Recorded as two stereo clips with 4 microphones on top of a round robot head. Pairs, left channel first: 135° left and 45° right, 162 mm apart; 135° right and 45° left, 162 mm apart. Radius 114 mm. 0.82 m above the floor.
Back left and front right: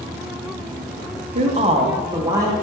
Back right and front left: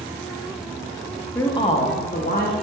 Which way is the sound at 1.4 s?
60° right.